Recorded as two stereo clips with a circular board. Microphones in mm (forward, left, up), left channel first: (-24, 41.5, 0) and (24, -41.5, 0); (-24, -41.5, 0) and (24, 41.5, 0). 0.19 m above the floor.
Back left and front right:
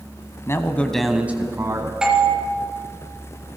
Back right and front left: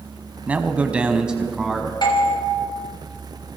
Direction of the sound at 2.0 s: 140° right.